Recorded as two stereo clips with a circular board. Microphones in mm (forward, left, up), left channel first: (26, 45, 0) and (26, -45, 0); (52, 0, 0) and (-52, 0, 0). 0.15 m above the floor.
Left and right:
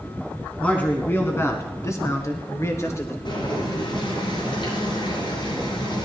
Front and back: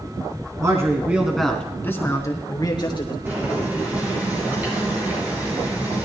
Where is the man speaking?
155° left, 1.8 m; by 3.1 s 35° left, 3 m.